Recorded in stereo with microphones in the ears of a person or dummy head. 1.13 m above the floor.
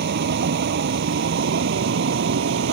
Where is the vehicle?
60° right (ahead or behind); by 2.7 s 65° right (ahead or behind).